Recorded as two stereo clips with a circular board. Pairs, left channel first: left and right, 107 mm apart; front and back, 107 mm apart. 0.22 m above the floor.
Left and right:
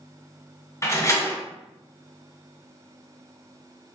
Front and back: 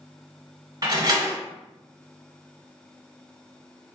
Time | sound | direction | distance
0.8 | a door slam | 145° left | 1.1 m